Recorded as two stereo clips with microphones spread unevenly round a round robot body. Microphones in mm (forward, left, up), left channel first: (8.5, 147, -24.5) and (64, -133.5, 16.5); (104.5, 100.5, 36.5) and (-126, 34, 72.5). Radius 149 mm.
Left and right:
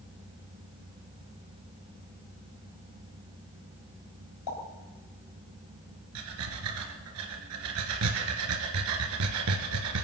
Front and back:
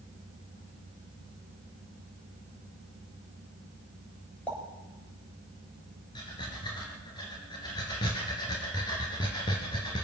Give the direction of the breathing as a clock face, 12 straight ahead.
2 o'clock.